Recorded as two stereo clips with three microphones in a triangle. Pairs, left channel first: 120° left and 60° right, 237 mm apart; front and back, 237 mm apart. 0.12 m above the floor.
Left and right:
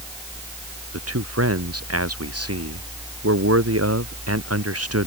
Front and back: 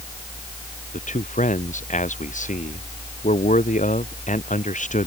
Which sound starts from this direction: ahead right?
A man speaking, at 0.9 s.